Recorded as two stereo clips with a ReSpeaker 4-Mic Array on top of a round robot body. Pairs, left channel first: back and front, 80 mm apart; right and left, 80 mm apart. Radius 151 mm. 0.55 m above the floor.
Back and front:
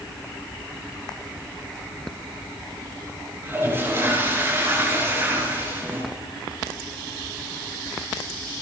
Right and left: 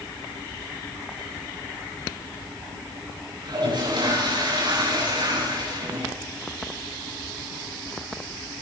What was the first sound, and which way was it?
A toilet flushing, 60° left.